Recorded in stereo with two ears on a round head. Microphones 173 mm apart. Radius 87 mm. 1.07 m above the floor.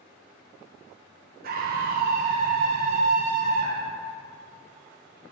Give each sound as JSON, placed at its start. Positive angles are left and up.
{"t": 1.4, "sound": "a scream", "side_deg": -50, "distance_m": 0.9}